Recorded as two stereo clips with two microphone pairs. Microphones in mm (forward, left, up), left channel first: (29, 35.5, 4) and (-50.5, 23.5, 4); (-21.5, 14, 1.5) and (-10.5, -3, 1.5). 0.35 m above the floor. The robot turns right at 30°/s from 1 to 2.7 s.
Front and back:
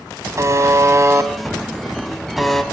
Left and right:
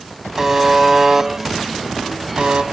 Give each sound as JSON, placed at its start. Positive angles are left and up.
{"t": 0.4, "sound": "a buzzer", "azimuth_deg": -125, "distance_m": 1.3}